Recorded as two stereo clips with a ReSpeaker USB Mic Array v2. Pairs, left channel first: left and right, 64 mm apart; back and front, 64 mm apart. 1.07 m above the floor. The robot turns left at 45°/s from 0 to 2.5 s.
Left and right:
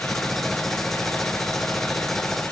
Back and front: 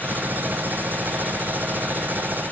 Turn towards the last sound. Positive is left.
No sound to turn to.